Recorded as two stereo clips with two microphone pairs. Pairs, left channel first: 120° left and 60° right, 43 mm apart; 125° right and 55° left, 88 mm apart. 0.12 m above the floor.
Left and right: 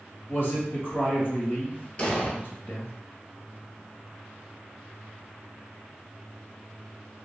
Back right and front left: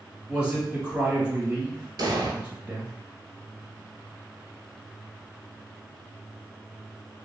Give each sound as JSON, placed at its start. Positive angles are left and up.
{"t": 0.3, "sound": "a man speaking", "azimuth_deg": 125, "distance_m": 1.7}
{"t": 2.0, "sound": "an explosion", "azimuth_deg": 65, "distance_m": 0.7}